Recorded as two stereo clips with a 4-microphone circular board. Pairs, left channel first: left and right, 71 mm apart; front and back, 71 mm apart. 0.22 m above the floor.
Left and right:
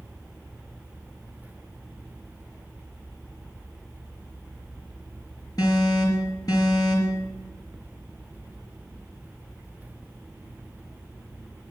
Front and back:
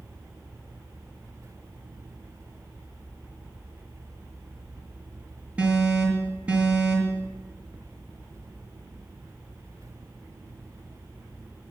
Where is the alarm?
110° left, 5 m.